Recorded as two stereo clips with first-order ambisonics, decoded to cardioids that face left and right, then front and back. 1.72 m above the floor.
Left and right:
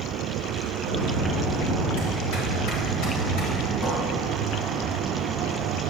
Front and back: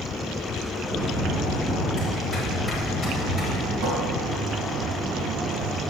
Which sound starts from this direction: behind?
A cupboard door, at 3.8 s.